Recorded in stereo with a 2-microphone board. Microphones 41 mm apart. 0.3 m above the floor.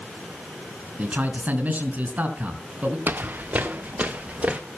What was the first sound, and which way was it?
A man speaking, 35° right (ahead or behind).